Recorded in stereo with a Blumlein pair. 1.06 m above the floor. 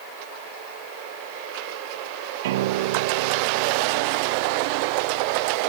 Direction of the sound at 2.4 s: 55° right.